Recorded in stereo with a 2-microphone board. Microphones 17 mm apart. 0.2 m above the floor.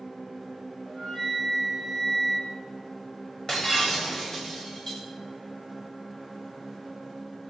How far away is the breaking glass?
About 8.5 m.